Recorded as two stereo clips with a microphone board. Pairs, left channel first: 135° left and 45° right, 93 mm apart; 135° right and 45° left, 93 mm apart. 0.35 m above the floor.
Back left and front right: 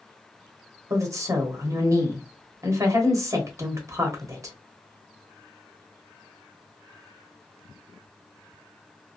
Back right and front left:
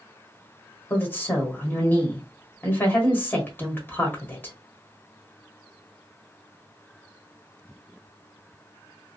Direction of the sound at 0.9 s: 75° right.